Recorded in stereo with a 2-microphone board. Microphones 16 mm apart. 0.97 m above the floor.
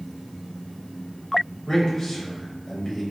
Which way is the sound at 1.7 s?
15° left (ahead or behind).